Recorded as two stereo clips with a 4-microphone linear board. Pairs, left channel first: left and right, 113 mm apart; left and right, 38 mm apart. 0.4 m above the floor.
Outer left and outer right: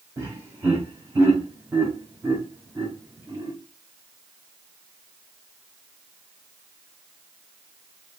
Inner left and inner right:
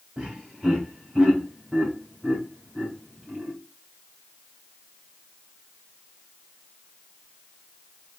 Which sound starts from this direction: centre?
Laughter, at 0.2 s.